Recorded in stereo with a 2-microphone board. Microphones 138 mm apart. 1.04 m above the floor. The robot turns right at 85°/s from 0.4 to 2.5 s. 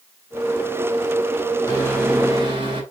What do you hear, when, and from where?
1.7 s a microwave: 150° left, 4.5 m; by 2.8 s 140° right, 4.5 m